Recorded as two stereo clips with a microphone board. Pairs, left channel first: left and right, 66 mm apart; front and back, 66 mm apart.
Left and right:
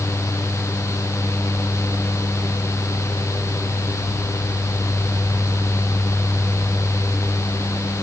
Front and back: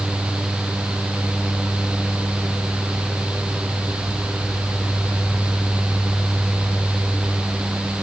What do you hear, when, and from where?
Only background noise.